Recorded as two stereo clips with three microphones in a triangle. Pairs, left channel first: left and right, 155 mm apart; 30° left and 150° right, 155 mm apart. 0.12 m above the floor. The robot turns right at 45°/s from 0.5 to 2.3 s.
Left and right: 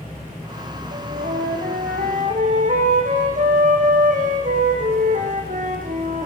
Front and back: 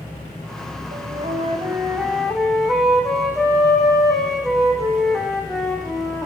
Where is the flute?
120° right, 5.5 m; by 6.3 s 60° right, 5.5 m.